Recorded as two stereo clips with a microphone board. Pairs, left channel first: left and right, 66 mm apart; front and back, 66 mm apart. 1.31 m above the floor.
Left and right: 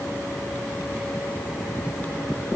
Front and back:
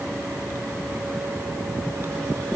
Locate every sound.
Only background noise.